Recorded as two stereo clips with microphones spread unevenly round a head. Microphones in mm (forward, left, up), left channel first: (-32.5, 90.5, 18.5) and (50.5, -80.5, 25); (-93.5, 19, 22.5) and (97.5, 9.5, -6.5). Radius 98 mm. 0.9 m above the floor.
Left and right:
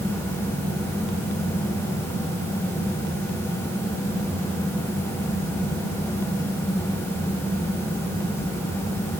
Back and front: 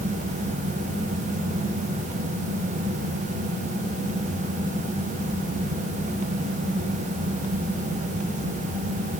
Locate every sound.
Only background noise.